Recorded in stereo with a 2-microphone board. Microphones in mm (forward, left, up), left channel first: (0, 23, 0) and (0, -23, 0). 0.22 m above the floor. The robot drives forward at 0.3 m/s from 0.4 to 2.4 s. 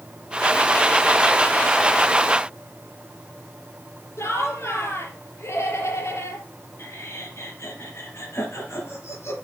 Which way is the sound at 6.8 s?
70° left (ahead or behind).